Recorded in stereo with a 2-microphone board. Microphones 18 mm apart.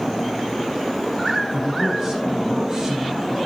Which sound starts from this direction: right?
A man speaking, at 1.5 s.